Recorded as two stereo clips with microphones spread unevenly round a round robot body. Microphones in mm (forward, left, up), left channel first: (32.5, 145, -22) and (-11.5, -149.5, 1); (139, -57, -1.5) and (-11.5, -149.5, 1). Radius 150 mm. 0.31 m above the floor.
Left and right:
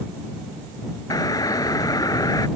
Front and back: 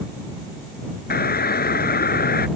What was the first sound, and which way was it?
A doorbell, 5° left.